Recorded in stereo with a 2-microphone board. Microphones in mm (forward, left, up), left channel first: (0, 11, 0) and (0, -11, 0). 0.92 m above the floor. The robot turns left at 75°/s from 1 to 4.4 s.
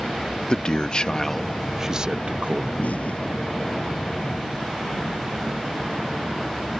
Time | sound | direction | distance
0.5 | a man speaking | 40° left | ?
2.8 | an explosion | 80° left | ?